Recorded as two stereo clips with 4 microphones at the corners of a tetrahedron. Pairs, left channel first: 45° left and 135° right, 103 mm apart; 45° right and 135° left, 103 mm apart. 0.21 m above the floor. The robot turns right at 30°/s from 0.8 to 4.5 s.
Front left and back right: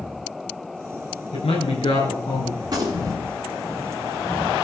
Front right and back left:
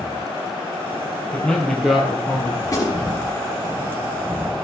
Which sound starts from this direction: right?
A gunshot, at 2.6 s.